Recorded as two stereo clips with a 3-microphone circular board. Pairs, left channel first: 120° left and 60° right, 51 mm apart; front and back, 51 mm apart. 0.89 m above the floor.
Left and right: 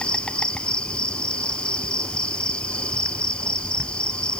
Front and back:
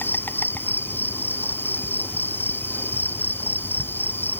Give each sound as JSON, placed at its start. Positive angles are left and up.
{"t": 0.0, "sound": "an insect", "azimuth_deg": 50}